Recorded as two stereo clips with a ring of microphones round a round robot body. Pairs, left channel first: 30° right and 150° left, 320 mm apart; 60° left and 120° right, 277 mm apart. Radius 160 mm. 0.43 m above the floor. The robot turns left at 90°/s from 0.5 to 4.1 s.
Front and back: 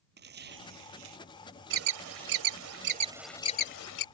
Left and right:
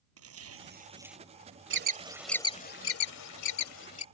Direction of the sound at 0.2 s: 150° right.